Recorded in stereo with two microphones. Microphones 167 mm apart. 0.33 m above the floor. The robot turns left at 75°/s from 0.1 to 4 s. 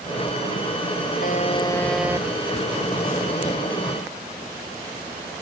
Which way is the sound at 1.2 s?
55° left.